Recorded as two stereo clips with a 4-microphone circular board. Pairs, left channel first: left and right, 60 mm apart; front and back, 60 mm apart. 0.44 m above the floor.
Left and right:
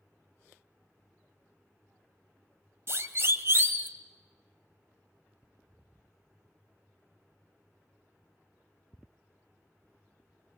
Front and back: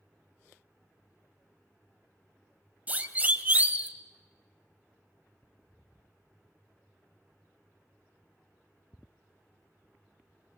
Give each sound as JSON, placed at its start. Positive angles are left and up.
{"t": 2.9, "sound": "a siren", "azimuth_deg": -120, "distance_m": 2.0}